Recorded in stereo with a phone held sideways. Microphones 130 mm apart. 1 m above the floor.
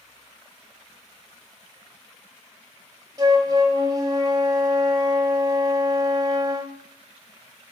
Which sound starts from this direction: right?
A flute, at 3.2 s.